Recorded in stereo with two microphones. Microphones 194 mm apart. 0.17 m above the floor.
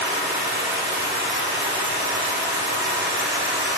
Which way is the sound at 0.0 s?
85° right.